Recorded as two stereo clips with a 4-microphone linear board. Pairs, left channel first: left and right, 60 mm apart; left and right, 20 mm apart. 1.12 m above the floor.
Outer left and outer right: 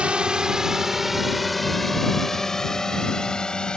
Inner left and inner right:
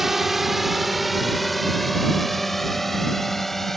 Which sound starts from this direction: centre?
A drone, at 0.0 s.